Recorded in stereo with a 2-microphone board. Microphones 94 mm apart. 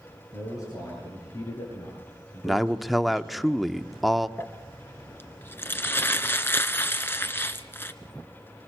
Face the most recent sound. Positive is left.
turn(degrees=25)  # may be behind; listen again after turning